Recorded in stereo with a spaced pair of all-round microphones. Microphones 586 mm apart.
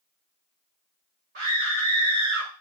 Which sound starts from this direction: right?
A scream, at 1.4 s.